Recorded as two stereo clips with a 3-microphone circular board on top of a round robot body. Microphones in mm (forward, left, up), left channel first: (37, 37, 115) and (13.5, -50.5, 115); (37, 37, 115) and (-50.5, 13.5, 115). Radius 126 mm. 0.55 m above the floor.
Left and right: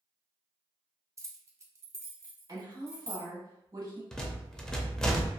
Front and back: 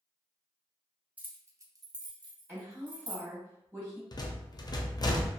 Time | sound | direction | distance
1.2 | keys jangling | 110° right | 0.7 m
2.5 | a woman speaking | 110° right | 1.4 m
4.1 | a rattle | 5° right | 0.7 m